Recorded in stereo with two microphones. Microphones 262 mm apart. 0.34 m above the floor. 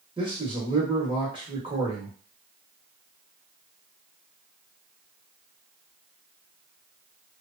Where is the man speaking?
20° right (ahead or behind), 0.9 m.